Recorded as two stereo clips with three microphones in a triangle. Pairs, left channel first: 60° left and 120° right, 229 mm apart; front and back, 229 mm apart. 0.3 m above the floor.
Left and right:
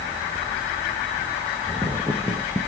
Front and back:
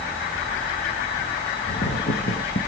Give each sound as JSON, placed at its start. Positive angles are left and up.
{"t": 1.7, "sound": "footsteps", "azimuth_deg": -35, "distance_m": 1.5}